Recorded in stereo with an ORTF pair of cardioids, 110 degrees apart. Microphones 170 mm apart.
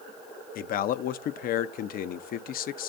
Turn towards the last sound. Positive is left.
turn(degrees=60)